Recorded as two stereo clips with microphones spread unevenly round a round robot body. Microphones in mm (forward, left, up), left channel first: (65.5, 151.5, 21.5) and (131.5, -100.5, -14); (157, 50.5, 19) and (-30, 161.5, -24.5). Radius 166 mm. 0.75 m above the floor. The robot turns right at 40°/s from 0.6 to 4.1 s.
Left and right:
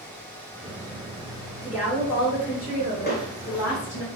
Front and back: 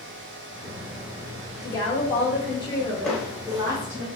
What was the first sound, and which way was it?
A woman speaking, 5° left.